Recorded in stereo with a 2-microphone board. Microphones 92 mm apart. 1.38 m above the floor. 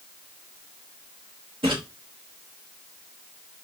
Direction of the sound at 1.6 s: 75° right (ahead or behind).